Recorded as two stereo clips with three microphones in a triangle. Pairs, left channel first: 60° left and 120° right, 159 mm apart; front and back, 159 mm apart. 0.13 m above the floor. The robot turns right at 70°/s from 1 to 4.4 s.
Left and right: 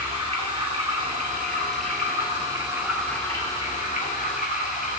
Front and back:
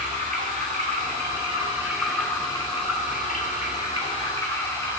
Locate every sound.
0.0 s running water: 165° right, 2 m; by 5.0 s 70° left, 2 m